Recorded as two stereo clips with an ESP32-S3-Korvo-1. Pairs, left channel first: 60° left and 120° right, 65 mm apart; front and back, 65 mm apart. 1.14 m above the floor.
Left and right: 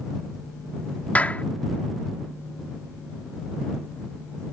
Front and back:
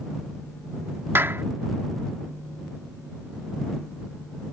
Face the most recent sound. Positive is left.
turn(degrees=130)